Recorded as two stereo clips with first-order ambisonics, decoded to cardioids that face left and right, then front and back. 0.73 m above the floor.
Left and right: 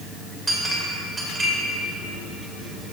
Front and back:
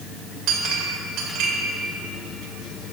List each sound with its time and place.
0.5 s a clink: 165° right, 2.5 m